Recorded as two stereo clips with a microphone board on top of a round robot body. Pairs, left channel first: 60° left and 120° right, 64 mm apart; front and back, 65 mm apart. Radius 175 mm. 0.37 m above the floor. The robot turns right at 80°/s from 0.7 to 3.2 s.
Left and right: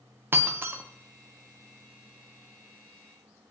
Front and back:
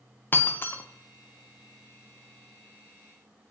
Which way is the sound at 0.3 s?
60° right.